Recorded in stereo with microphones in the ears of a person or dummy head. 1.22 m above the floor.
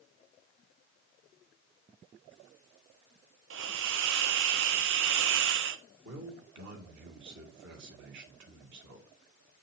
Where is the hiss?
60° right (ahead or behind), 0.7 m.